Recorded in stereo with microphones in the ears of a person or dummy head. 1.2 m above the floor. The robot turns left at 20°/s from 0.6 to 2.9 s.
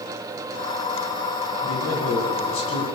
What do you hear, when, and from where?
1.6 s a man speaking: 75° left (ahead or behind), 8.5 m; by 2.9 s 80° left, 8.5 m